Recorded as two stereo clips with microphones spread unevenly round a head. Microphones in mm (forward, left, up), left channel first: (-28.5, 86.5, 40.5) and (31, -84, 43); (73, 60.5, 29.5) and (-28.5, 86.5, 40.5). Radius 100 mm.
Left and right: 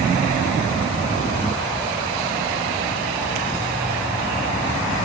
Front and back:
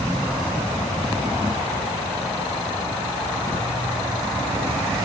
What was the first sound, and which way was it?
Only background noise.